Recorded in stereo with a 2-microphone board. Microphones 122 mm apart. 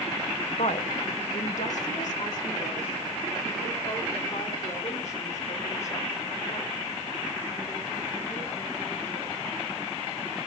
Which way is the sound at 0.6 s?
65° left (ahead or behind).